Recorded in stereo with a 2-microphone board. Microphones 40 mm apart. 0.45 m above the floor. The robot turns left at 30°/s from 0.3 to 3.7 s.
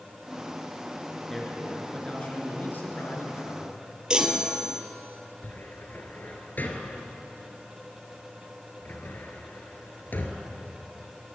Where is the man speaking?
170° left, 5.5 m; by 3.8 s 100° left, 5.5 m.